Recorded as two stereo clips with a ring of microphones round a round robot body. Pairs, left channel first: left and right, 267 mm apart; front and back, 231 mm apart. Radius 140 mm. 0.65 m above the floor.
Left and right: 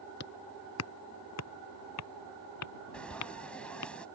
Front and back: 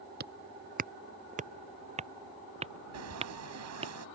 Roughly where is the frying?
Behind.